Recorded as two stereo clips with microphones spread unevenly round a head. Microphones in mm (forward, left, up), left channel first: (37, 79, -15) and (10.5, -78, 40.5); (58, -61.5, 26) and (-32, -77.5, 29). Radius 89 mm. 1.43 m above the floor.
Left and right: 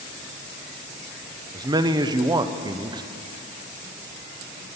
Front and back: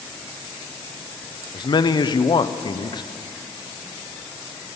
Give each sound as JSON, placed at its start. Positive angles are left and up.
{"t": 1.5, "sound": "a man speaking", "azimuth_deg": -30, "distance_m": 0.8}